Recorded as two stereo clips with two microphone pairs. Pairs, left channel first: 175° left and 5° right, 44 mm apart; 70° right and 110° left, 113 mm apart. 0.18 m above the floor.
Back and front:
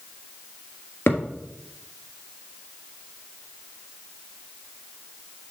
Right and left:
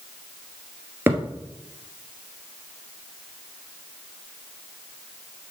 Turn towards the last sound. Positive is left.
turn(degrees=180)